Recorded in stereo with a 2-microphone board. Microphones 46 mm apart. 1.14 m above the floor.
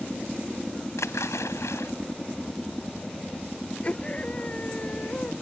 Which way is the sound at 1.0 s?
85° left.